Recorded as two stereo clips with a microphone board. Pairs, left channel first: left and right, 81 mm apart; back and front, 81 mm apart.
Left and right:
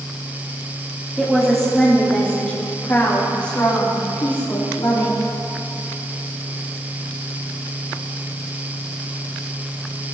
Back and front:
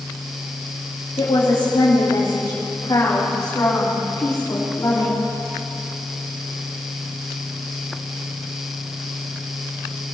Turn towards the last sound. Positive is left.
turn(degrees=115)